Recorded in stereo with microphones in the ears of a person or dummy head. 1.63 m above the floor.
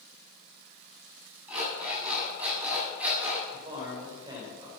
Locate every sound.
1.5 s an alarm clock: 5° right (ahead or behind), 7 m
3.5 s a man speaking: 15° right (ahead or behind), 6.5 m